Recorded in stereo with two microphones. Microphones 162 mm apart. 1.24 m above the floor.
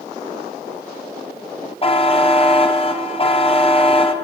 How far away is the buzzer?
About 0.8 m.